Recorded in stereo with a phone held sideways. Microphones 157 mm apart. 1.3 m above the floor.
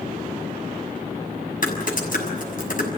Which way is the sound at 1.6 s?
60° left (ahead or behind).